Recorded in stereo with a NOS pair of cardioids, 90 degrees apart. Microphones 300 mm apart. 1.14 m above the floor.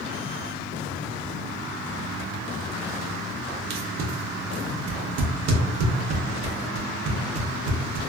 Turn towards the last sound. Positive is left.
turn(degrees=-65)